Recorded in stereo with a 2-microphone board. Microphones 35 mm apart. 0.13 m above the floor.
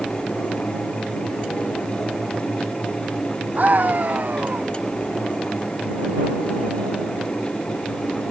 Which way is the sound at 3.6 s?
50° right (ahead or behind).